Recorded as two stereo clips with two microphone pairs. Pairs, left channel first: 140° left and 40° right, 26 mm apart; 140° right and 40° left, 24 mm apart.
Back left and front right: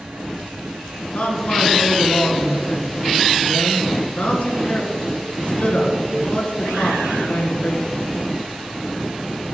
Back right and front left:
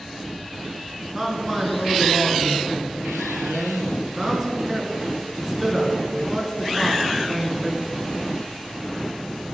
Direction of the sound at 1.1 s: 115° left.